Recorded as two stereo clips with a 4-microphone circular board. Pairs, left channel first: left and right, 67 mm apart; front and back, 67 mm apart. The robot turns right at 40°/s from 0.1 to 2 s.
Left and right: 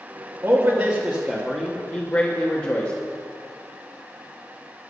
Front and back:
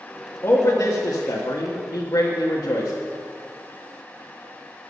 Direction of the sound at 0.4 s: 30° right.